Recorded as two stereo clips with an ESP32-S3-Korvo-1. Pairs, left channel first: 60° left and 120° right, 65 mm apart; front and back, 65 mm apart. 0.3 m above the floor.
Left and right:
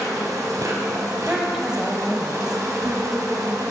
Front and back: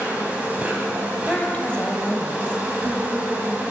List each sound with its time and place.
0.0 s an insect: 115° right, 1.5 m
1.3 s a woman speaking: 50° right, 1.1 m